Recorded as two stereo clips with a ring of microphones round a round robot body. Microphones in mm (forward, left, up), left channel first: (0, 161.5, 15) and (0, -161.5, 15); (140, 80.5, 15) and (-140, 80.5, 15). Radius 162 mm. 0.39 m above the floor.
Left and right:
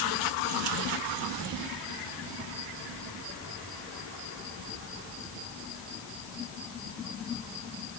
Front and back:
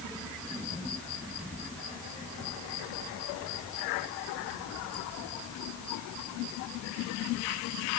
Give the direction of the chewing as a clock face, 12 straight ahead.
I don't hear chewing.